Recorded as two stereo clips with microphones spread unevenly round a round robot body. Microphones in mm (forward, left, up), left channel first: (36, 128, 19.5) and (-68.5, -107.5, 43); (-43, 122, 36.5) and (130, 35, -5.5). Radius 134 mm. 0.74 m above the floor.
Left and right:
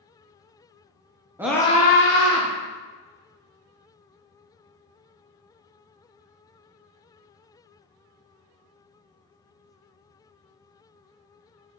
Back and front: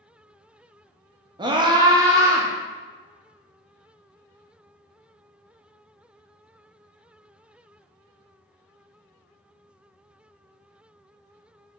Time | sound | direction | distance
1.4 | a scream | 35° right | 0.6 m